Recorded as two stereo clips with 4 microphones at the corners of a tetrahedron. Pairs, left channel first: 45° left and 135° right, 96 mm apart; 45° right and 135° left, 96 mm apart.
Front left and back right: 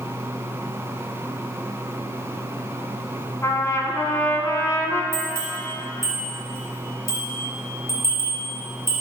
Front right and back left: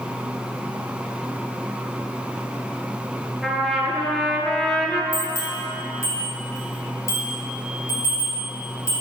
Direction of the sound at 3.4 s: 40° left.